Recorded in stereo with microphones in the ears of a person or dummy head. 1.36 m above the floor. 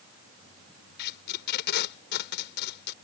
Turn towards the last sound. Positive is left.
turn(degrees=65)  # may be behind; listen again after turning